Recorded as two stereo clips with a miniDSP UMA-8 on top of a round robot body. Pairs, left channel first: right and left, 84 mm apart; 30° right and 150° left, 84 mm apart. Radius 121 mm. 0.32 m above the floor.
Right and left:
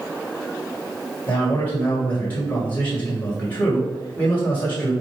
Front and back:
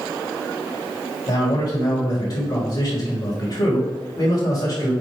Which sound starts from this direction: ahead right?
A man speaking, at 1.3 s.